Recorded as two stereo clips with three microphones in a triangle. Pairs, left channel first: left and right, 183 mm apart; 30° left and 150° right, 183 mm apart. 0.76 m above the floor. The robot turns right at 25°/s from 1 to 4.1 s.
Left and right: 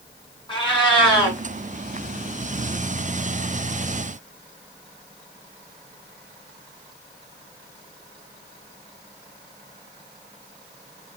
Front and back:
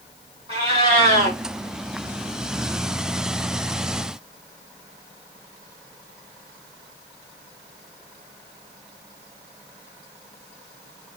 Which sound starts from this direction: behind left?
A cat meowing, at 0.5 s.